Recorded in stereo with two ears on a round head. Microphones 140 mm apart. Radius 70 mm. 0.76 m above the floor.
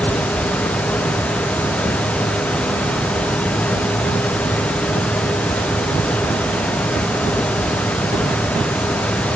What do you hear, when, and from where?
Only background noise.